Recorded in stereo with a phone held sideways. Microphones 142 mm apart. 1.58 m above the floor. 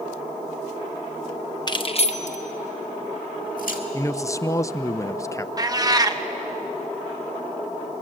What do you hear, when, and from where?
1.7 s keys jangling: 30° left (ahead or behind), 0.8 m; by 3.8 s 70° left (ahead or behind), 2 m
3.9 s a man speaking: 20° left (ahead or behind), 0.5 m
5.6 s a cat meowing: 25° right (ahead or behind), 0.8 m